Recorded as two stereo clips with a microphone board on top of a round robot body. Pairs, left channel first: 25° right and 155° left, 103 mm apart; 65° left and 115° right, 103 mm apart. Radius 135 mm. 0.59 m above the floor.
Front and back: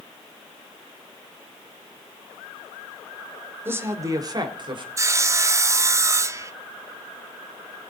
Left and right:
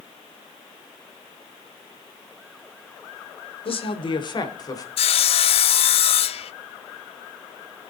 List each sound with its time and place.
3.6 s a woman speaking: 90° left, 2.5 m; by 4.9 s 120° left, 3.5 m
5.0 s sawing: 95° left, 0.6 m